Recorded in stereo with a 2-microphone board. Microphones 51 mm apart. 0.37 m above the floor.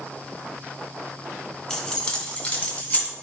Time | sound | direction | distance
1.7 | keys jangling | 15° left (ahead or behind) | 1.1 m